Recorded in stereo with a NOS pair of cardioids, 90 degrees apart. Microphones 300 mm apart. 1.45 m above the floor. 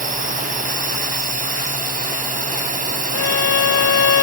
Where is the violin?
55° left.